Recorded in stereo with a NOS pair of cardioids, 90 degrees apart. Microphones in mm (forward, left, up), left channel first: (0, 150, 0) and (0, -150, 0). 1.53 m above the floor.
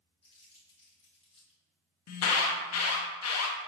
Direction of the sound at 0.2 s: 20° left.